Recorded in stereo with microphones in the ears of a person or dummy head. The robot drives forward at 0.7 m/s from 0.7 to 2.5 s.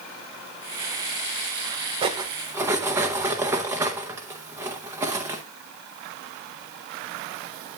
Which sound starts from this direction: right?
Cutlery clinking, at 2.0 s.